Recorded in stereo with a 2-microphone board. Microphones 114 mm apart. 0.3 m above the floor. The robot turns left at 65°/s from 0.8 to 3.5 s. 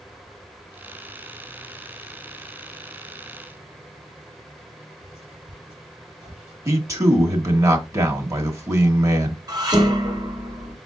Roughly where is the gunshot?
No gunshot in this recording.